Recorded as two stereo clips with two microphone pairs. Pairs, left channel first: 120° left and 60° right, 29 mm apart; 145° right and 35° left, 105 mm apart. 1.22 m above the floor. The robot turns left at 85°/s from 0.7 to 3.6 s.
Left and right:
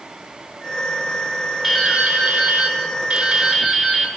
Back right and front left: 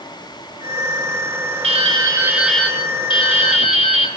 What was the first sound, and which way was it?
Dripping, 20° left.